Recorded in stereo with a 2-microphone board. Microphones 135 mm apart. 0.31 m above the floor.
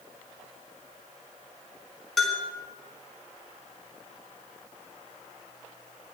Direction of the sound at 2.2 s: Centre (ahead or behind).